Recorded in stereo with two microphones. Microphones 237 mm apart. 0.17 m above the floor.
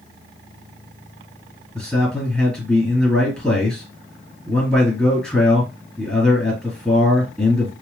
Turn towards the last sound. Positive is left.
turn(degrees=5)  # may be behind; listen again after turning